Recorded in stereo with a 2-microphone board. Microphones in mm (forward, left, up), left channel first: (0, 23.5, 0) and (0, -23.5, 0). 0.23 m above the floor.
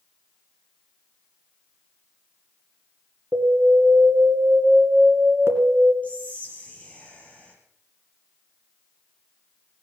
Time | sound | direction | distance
3.3 | an alarm | 65° right (ahead or behind) | 2.5 m
6.0 | whispering | 30° left (ahead or behind) | 4.5 m